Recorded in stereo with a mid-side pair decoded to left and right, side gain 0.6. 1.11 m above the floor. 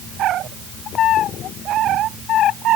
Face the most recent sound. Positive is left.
No sound to turn to.